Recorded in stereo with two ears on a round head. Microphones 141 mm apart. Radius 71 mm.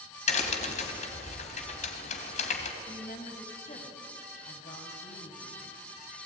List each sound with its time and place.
0.3 s a crack: 45° left (ahead or behind), 3 m
2.8 s a woman speaking: 45° left (ahead or behind), 3.5 m